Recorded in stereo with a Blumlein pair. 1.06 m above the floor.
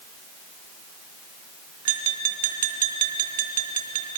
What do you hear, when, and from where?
1.9 s tapping: 55° right, 2.5 m